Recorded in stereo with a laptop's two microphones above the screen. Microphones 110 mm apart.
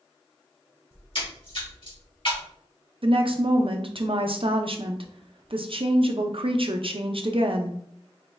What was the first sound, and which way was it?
A splash, 55° left (ahead or behind).